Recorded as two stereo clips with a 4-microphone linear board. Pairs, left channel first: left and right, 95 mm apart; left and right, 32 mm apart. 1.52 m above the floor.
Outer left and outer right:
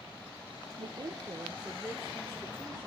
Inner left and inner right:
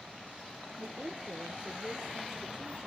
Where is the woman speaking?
60° right (ahead or behind), 0.8 m; by 2.9 s 15° left (ahead or behind), 1.7 m.